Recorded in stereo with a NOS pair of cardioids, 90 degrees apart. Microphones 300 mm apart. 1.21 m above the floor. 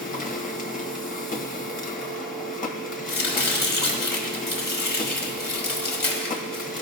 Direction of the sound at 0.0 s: 25° left.